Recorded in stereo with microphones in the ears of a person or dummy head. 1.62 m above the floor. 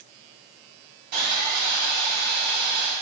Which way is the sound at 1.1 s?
50° right (ahead or behind).